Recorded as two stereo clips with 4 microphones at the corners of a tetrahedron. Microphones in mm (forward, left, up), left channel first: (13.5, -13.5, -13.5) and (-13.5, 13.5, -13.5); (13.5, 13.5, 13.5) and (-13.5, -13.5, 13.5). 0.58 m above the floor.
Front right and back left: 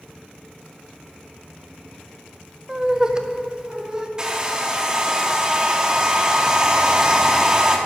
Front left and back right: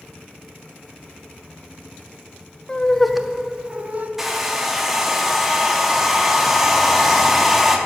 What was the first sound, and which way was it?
Laughter, 80° left.